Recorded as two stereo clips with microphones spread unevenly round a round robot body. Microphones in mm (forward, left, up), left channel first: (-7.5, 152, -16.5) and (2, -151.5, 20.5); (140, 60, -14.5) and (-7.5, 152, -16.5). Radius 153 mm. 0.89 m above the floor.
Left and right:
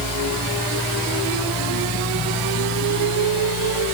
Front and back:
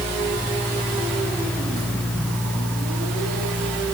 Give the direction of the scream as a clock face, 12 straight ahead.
No scream in this recording.